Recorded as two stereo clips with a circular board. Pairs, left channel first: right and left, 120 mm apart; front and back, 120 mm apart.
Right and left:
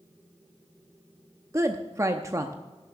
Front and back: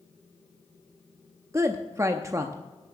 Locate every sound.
1.5 s a woman speaking: 135° left, 0.6 m